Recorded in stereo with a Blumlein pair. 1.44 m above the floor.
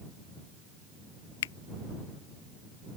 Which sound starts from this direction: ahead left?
A finger snap, at 1.4 s.